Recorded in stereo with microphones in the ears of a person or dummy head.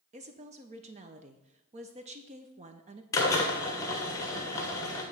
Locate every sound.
0.1 s a woman speaking: 25° right (ahead or behind), 0.6 m
3.1 s a drill: 20° left (ahead or behind), 1.1 m